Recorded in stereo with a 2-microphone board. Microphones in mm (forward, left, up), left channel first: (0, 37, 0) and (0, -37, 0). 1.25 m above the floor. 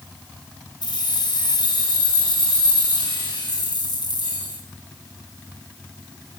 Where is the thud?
I don't hear a thud.